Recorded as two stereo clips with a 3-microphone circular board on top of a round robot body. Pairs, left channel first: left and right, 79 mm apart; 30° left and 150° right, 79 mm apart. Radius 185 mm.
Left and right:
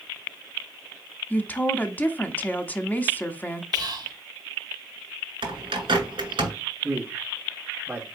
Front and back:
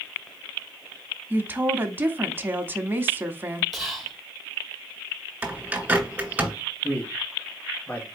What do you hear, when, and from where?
1.3 s a woman speaking: 150° left, 1.0 m
3.7 s whispering: 60° right, 2.0 m
5.4 s a bird: 80° right, 2.0 m
6.8 s a man speaking: 30° right, 1.7 m